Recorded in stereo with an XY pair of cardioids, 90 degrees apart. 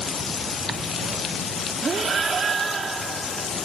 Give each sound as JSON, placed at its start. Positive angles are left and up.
{"t": 1.8, "sound": "breathing", "azimuth_deg": -50}